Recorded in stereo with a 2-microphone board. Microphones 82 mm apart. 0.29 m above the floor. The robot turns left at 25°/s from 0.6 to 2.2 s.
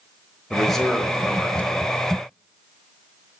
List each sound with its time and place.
0.5 s a man speaking: 5° left (ahead or behind), 0.9 m; by 2.0 s 15° left (ahead or behind), 0.9 m